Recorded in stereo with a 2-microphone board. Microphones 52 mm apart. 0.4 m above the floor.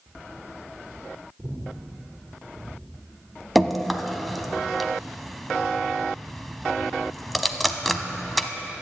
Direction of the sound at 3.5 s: Centre (ahead or behind).